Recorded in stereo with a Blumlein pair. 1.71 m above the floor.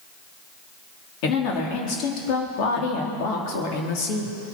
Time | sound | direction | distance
1.2 | a woman speaking | 40° left | 3.5 m